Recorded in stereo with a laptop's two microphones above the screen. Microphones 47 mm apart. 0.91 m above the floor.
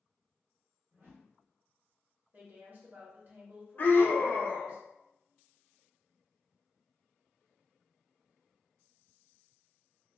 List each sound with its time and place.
0.9 s a whoosh: 45° right (ahead or behind), 1.1 m
2.3 s a woman speaking: 45° right (ahead or behind), 0.9 m
3.8 s a scream: 45° left (ahead or behind), 0.6 m